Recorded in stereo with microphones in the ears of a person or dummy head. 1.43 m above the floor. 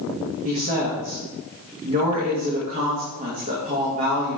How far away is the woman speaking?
About 2.0 m.